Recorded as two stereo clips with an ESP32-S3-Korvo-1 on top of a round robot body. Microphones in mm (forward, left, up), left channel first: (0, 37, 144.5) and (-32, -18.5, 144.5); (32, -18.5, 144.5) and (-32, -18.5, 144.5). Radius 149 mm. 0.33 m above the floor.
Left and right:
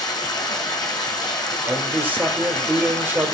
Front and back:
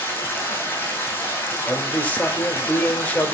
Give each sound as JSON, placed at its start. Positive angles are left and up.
{"t": 0.0, "sound": "running water", "azimuth_deg": 65, "distance_m": 3.5}
{"t": 1.7, "sound": "a man speaking", "azimuth_deg": -65, "distance_m": 1.8}